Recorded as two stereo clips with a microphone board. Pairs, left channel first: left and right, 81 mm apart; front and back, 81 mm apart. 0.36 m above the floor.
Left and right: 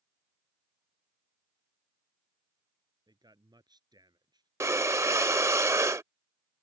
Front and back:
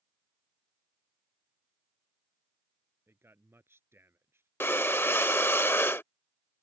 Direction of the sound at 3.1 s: 120° right.